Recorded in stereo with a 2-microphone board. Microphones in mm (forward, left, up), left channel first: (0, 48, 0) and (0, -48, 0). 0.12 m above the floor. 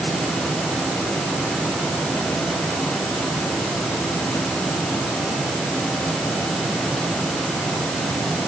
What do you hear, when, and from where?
Only background noise.